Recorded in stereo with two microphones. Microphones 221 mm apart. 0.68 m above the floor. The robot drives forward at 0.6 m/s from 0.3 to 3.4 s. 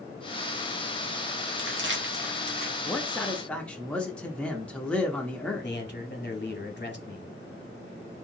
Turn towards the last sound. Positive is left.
turn(degrees=50)  # may be behind; listen again after turning